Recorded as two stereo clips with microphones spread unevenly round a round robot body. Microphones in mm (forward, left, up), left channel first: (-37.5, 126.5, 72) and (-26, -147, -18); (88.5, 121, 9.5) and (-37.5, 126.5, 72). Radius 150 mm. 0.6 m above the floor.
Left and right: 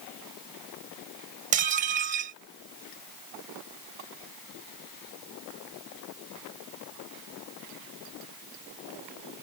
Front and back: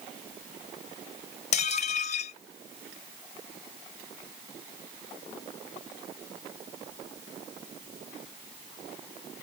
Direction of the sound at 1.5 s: 25° right.